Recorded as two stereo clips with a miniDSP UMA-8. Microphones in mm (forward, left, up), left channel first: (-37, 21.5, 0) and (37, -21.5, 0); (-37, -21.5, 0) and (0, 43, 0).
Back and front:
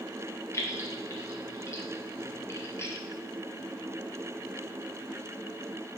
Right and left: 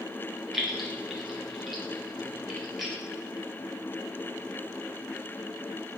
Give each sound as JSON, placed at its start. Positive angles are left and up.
{"t": 0.5, "sound": "keys jangling", "azimuth_deg": 145, "distance_m": 0.7}